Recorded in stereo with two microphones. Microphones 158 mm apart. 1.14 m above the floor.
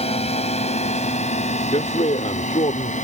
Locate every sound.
0.0 s a drone: 40° left (ahead or behind); by 3.0 s 50° left (ahead or behind)
1.7 s a man speaking: 45° left (ahead or behind)